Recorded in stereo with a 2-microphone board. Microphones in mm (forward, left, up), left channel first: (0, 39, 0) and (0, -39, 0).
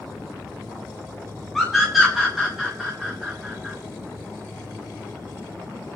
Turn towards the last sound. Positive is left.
turn(degrees=-10)  # may be behind; listen again after turning